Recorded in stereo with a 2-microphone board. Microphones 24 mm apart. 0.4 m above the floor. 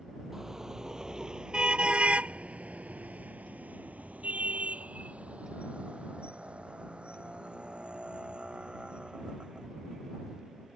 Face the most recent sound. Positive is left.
turn(degrees=-40)  # may be behind; listen again after turning